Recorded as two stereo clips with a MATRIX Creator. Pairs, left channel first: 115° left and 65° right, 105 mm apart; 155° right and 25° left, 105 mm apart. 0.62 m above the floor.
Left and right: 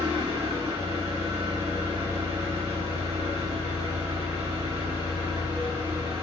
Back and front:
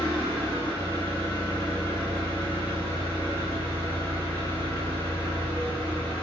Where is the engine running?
95° right, 1.9 m.